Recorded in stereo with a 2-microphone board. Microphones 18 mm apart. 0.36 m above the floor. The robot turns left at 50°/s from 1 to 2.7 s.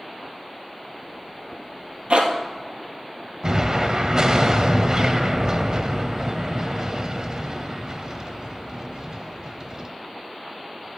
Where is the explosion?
35° right (ahead or behind), 0.8 m.